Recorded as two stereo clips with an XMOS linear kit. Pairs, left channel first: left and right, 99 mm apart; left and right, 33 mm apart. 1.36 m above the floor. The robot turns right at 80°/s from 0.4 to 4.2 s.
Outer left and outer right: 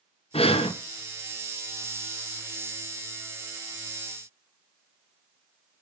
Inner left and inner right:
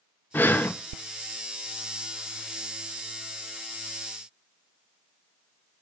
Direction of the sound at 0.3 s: 75° left (ahead or behind).